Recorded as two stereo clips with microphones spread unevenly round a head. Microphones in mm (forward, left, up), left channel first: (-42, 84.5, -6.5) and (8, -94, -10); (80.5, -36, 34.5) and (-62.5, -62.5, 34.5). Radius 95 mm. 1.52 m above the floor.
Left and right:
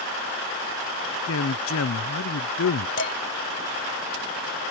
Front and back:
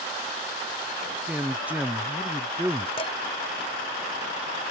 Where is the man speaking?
110° left.